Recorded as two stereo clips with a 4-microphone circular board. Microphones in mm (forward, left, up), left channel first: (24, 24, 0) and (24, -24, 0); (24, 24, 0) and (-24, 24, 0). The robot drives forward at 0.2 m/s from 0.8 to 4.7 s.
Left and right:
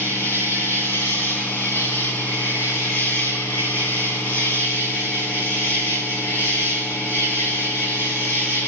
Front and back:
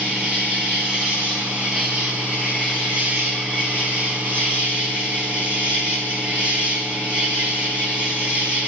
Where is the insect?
115° left, 5.5 m; by 8.7 s 120° left, 6 m.